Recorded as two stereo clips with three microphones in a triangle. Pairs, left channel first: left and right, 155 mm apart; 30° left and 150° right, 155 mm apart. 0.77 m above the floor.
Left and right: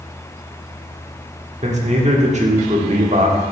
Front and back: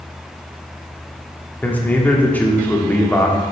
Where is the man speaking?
50° right, 1.3 m.